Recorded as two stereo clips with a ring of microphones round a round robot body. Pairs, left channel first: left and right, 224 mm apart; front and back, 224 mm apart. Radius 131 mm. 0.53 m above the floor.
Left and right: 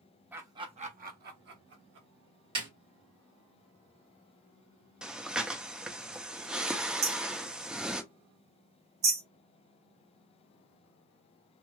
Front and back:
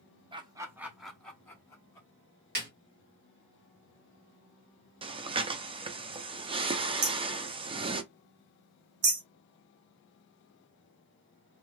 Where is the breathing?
170° right, 0.5 m.